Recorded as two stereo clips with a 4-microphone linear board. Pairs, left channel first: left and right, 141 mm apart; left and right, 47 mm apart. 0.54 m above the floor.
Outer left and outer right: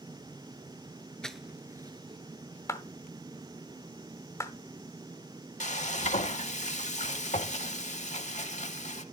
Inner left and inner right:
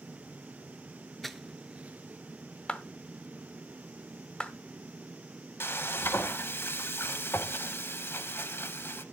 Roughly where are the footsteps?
Centre.